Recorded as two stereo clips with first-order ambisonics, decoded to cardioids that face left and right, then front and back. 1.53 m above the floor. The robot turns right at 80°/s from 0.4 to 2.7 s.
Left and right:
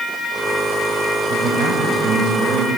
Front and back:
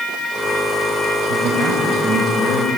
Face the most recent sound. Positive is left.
turn(degrees=-25)